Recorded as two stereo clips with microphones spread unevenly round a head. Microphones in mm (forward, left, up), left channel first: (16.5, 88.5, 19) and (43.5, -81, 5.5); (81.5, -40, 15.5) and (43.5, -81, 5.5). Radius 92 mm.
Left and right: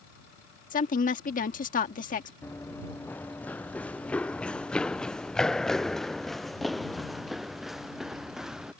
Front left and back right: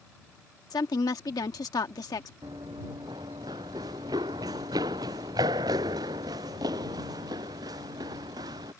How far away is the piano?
I don't hear a piano.